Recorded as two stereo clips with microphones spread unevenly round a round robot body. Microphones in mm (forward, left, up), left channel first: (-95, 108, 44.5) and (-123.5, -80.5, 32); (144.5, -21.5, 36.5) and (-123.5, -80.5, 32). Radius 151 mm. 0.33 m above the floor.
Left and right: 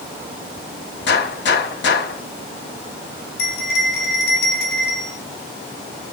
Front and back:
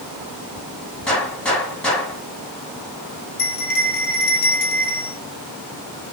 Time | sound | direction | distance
1.1 | a gunshot | 100° left | 3.5 m
3.4 | a bell | 60° left | 2 m